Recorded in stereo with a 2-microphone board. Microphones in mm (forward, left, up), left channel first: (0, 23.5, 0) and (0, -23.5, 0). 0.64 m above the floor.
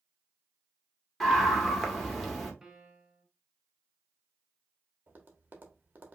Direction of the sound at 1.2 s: 5° left (ahead or behind).